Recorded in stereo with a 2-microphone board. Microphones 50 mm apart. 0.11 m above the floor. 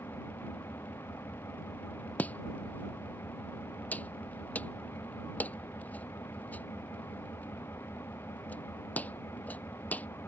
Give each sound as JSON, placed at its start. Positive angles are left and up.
{"t": 0.0, "sound": "an engine running", "side_deg": 60}
{"t": 2.2, "sound": "chopping", "side_deg": 30}